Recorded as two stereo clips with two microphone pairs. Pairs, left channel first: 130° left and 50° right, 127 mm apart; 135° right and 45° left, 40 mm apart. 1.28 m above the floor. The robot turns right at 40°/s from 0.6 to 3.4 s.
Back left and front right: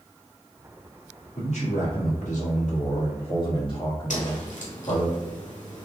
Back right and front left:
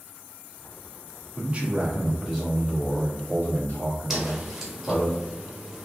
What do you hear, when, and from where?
1.4 s a man speaking: 95° left, 1.8 m; by 5.1 s straight behind, 1.8 m
4.1 s a whoosh: 125° left, 1.1 m